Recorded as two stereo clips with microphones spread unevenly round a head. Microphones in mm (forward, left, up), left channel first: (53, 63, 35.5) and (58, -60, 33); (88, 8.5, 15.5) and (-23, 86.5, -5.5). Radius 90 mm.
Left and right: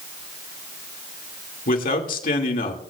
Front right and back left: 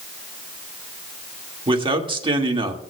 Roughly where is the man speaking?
Left.